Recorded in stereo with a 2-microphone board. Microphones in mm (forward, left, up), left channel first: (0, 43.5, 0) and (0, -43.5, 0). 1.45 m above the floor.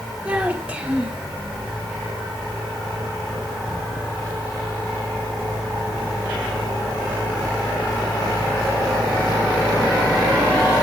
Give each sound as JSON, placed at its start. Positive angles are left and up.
{"t": 0.2, "sound": "a child speaking", "side_deg": -15, "distance_m": 3.5}